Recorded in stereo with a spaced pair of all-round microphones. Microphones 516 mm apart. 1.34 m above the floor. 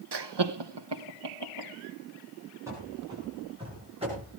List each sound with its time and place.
0.1 s laughter: 50° right (ahead or behind), 0.7 m; by 1.7 s 55° right (ahead or behind), 1.8 m
2.7 s running footsteps: 5° right (ahead or behind), 8 m; by 4.3 s 10° right (ahead or behind), 9 m